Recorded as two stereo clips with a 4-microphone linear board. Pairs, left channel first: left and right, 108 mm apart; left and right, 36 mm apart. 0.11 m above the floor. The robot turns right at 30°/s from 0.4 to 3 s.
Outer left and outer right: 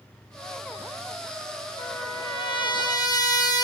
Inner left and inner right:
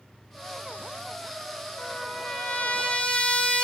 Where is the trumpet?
105° left, 2.5 m; by 3.7 s 140° left, 2.5 m.